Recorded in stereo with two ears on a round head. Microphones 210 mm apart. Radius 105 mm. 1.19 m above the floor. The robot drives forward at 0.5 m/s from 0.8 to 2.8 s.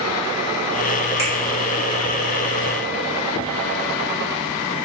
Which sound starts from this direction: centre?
A finger snap, at 1.2 s.